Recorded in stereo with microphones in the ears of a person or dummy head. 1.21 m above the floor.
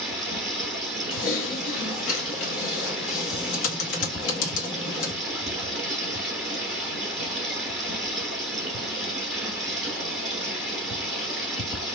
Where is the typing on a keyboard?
70° left (ahead or behind), 1.5 m.